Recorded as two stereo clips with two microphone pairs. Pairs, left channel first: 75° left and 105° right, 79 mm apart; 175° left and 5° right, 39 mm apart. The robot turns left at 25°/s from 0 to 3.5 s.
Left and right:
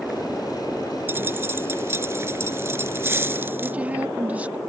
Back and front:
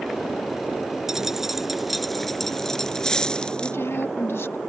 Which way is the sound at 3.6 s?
175° right.